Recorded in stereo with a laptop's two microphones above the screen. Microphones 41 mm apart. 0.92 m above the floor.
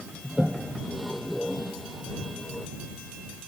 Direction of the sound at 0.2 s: Centre (ahead or behind).